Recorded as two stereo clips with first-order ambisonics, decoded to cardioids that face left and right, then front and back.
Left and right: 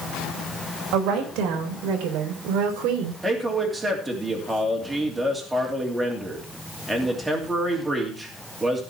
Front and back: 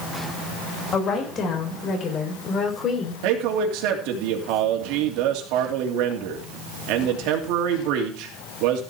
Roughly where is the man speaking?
Behind.